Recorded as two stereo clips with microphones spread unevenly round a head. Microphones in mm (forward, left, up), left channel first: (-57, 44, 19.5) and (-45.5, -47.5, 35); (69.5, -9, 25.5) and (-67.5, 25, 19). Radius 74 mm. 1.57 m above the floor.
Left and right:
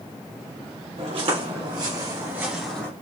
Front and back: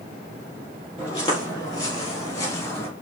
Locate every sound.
1.0 s footsteps: 80° right, 3 m; by 2.9 s 20° left, 1.6 m